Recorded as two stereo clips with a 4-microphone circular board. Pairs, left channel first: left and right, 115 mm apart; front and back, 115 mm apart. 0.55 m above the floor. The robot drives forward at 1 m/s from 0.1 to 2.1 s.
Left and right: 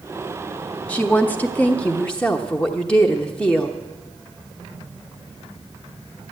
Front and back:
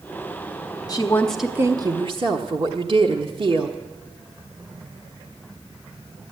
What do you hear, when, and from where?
0.9 s a woman speaking: 20° left, 0.8 m; by 3.8 s 170° left, 1.0 m